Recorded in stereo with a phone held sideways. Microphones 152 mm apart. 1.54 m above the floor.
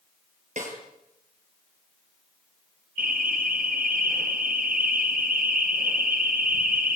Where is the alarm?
70° right (ahead or behind), 4.5 m.